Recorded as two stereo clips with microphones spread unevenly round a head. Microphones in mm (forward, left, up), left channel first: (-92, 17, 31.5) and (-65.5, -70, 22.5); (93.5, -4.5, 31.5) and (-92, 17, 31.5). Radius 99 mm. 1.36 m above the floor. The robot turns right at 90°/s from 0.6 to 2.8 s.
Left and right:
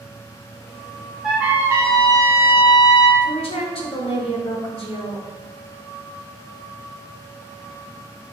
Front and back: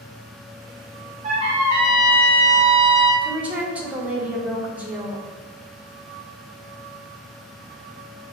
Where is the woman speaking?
90° left, 0.8 m.